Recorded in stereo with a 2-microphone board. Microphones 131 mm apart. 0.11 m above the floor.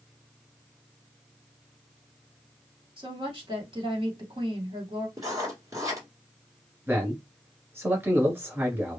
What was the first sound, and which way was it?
A woman speaking, 40° right (ahead or behind).